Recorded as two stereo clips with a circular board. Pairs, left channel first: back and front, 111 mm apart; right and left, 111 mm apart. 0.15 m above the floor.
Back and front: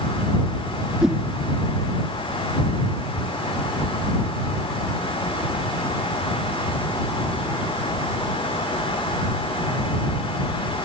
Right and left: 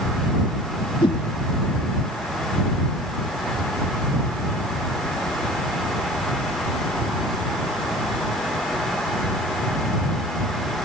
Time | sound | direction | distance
1.0 | a whoosh | 85° right | ?